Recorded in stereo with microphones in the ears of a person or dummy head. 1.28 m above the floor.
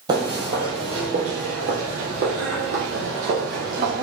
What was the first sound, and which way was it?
Footsteps, 15° right (ahead or behind).